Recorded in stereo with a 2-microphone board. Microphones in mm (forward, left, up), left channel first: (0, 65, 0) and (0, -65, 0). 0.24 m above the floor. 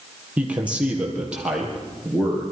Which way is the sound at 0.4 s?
10° right (ahead or behind).